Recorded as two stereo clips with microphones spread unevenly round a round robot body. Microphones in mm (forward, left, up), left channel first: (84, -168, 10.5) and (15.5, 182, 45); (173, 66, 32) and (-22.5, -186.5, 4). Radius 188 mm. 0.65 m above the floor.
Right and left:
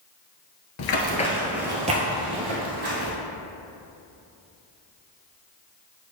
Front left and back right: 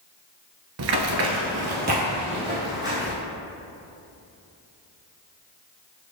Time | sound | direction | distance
0.8 | running footsteps | 110° right | 0.7 m